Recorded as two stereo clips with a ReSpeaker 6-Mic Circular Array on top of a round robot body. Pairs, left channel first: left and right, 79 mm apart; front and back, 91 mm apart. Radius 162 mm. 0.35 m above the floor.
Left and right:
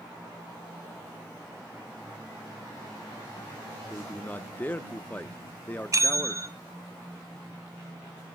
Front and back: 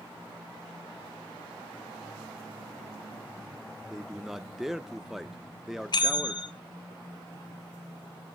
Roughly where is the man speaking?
Left.